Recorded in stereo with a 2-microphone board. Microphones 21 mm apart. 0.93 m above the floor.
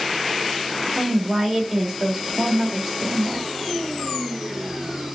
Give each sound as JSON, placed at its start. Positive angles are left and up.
{"t": 0.9, "sound": "a woman speaking", "side_deg": -20, "distance_m": 3.0}